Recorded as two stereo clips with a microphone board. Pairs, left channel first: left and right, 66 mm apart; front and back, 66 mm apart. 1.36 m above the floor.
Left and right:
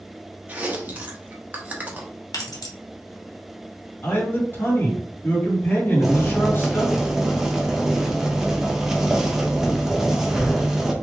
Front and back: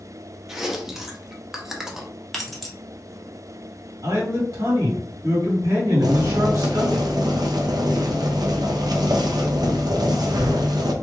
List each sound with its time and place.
0.5 s chewing: 105° right, 0.8 m
2.3 s keys jangling: 85° left, 1.0 m
4.0 s a man speaking: 150° left, 2 m
6.0 s boiling: 170° right, 0.7 m